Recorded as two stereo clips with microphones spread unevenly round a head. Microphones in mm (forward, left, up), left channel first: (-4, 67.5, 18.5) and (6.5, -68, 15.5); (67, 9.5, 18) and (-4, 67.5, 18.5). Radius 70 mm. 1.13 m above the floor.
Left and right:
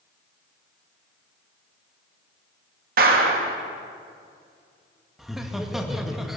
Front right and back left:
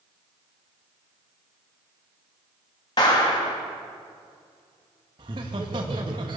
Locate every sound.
3.0 s a clap: 95° right, 1.9 m
5.2 s laughter: 175° right, 1.8 m